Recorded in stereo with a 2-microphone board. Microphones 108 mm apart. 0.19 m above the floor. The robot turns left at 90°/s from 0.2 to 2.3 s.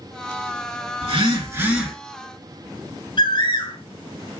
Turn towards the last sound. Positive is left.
turn(degrees=50)  # may be behind; listen again after turning